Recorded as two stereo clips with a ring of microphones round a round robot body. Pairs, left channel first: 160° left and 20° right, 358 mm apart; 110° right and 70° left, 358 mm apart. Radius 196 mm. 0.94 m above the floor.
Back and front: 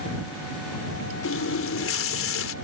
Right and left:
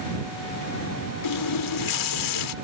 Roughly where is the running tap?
Behind right.